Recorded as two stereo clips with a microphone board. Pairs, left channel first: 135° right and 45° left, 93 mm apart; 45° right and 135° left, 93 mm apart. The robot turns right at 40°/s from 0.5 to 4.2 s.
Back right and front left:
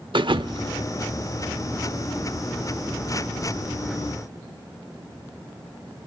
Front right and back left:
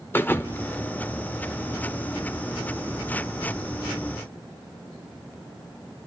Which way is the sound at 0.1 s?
20° left.